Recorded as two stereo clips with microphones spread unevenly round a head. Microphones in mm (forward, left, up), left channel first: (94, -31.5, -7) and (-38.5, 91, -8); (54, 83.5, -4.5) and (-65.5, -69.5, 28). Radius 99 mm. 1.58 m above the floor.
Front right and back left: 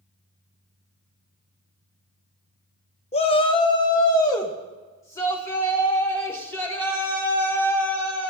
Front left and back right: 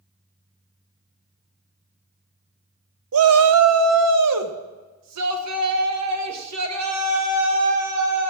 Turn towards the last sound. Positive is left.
turn(degrees=-125)